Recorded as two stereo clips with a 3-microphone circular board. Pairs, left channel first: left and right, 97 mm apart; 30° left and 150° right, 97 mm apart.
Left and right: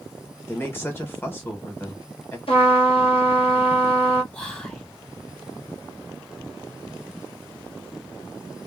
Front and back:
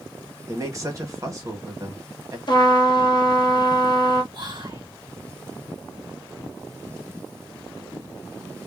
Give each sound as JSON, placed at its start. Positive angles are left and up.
{"t": 0.5, "sound": "a man speaking", "azimuth_deg": 155, "distance_m": 1.3}
{"t": 2.5, "sound": "a trumpet", "azimuth_deg": 70, "distance_m": 1.1}
{"t": 4.3, "sound": "whispering", "azimuth_deg": 165, "distance_m": 1.4}